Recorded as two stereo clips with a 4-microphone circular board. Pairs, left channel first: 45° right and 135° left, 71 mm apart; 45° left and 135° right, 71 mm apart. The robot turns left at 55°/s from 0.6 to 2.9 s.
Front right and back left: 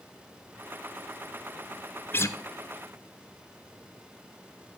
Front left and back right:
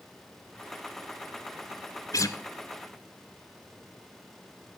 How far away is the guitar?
About 0.7 m.